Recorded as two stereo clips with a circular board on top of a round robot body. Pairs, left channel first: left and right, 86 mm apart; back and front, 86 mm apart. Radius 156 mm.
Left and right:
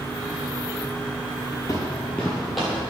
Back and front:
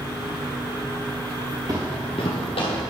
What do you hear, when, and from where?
1.7 s footsteps: 40° left, 0.8 m; by 2.8 s 175° right, 1.5 m